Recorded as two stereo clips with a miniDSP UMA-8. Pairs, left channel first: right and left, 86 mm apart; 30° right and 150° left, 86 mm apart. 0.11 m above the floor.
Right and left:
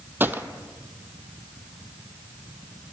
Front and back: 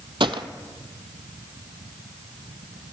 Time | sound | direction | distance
0.2 | a gunshot | 155° left | 0.6 m